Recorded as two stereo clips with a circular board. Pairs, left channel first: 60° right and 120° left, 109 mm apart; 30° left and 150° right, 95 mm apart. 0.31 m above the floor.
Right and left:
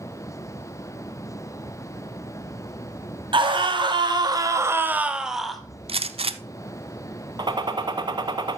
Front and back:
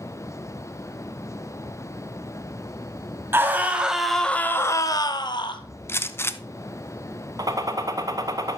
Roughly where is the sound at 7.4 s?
Behind.